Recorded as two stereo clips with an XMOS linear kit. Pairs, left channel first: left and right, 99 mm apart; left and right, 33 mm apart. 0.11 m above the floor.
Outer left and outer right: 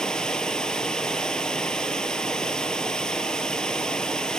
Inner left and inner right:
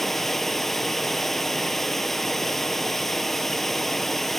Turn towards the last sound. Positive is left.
turn(degrees=5)  # may be behind; listen again after turning